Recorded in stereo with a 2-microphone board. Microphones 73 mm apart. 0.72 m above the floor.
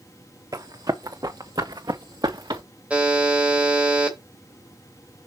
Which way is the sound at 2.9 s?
15° right (ahead or behind).